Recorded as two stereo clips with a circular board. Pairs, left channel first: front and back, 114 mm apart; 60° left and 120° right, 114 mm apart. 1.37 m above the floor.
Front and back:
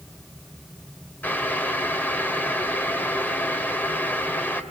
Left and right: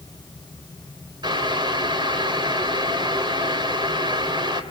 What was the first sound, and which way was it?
Boiling, 75° right.